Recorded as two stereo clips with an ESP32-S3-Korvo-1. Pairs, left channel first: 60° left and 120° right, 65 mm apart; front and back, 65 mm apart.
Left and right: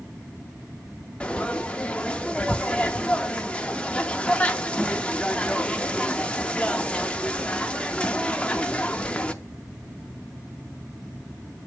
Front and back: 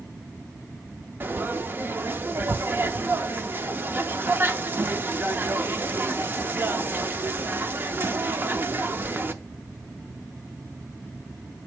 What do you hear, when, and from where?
1.2 s frying: 130° left, 0.6 m